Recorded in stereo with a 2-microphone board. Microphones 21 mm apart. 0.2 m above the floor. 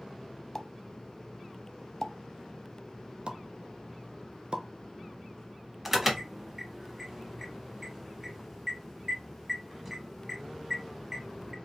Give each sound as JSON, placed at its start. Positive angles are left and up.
{"t": 0.6, "sound": "a pop", "side_deg": 15, "distance_m": 0.6}
{"t": 3.3, "sound": "a pop", "side_deg": -55, "distance_m": 0.8}
{"t": 5.8, "sound": "an alarm", "side_deg": -20, "distance_m": 1.0}